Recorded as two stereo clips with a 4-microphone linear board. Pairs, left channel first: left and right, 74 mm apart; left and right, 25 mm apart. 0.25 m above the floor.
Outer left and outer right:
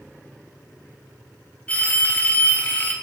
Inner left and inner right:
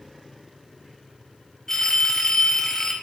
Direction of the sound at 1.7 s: 20° left (ahead or behind).